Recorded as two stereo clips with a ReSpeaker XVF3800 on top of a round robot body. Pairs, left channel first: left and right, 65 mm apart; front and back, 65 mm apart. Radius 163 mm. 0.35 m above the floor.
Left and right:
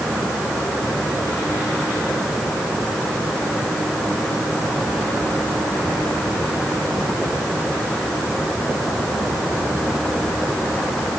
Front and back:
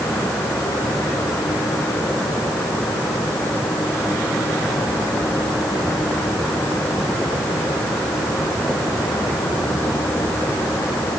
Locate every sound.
Only background noise.